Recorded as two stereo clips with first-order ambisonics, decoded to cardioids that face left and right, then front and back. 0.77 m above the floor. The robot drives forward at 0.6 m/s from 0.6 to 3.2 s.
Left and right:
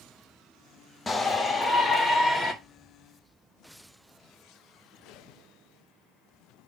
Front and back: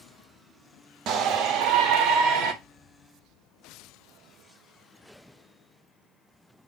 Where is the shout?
160° left, 1.1 m; by 2.5 s 170° left, 1.8 m.